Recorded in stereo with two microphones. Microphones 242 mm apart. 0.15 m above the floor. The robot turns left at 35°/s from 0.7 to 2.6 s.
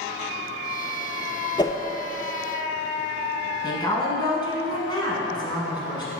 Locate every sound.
1.6 s a whoosh: 20° left (ahead or behind), 0.5 m; by 1.8 s 15° left (ahead or behind), 0.5 m
3.6 s a woman speaking: 20° left (ahead or behind), 1.1 m